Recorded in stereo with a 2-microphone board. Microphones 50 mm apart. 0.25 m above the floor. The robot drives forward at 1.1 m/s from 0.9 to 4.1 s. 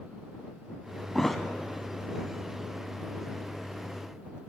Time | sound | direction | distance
1.1 | a thud | 5° left (ahead or behind) | 0.6 m